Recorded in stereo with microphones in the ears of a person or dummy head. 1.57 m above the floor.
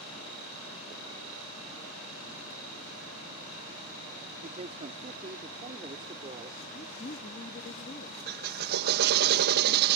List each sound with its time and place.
4.4 s a man speaking: 35° right (ahead or behind); by 6.6 s 20° right (ahead or behind)
6.7 s a woman speaking: 45° left (ahead or behind)
8.3 s a drill: 55° right (ahead or behind)